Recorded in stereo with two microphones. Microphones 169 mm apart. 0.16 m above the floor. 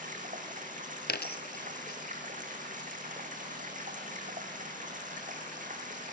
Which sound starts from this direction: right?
Running water, at 0.0 s.